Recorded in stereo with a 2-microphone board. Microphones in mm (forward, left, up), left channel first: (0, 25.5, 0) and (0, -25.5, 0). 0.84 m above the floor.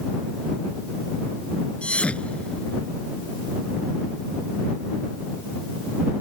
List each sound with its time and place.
1.8 s a thud: 20° left (ahead or behind)